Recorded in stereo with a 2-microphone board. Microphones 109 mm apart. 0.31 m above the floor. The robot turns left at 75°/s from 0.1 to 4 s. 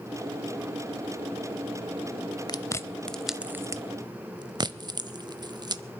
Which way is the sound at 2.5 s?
40° left (ahead or behind).